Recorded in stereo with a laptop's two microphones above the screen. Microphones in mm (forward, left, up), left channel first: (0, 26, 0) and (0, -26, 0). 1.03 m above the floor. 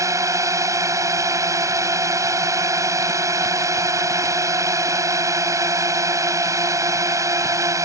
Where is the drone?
80° right.